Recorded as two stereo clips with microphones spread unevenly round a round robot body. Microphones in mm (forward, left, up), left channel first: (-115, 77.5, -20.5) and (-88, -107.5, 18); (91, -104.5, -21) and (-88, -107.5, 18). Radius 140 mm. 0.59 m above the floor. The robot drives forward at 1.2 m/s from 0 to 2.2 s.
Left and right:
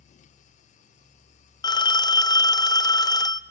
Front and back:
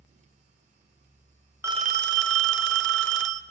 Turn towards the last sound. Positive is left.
turn(degrees=160)